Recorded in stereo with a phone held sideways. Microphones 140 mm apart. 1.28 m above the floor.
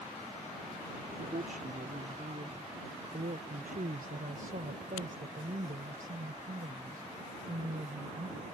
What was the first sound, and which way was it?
A woman speaking, 75° right (ahead or behind).